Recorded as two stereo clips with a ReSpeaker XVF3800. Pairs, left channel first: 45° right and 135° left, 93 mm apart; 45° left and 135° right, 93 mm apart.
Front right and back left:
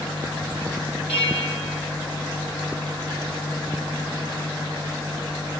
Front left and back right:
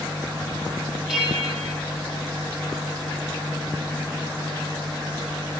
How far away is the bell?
About 3.5 m.